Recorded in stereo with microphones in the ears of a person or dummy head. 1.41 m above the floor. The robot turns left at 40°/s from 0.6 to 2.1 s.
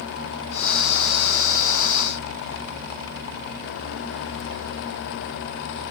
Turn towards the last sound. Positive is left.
No sound to turn to.